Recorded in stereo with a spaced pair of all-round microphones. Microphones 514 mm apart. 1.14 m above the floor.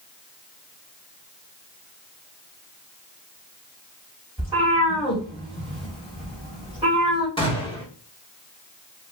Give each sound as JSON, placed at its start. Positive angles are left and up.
{"t": 4.4, "sound": "a cat meowing", "side_deg": -10, "distance_m": 2.5}
{"t": 7.4, "sound": "a gunshot", "side_deg": 10, "distance_m": 1.3}